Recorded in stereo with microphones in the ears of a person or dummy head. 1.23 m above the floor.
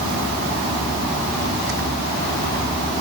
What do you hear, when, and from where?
Only background noise.